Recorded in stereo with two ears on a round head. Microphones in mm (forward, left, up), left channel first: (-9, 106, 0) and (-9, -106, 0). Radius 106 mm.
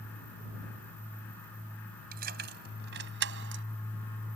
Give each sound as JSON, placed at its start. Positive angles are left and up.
{"t": 2.1, "sound": "keys jangling", "side_deg": -40}